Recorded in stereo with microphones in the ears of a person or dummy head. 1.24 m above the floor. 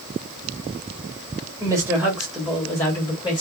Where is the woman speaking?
20° right (ahead or behind), 1.4 m; by 3.4 s 25° left (ahead or behind), 1.7 m.